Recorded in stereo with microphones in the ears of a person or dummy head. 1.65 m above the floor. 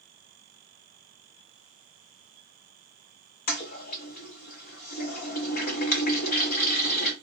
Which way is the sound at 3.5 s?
45° left (ahead or behind).